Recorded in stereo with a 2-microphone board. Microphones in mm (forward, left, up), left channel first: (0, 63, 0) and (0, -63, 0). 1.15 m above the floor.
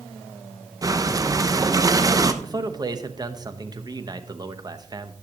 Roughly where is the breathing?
Right.